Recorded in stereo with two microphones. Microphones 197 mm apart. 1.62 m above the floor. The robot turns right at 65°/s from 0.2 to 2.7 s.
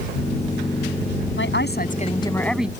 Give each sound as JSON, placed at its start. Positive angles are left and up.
{"t": 1.4, "sound": "a woman speaking", "azimuth_deg": 100}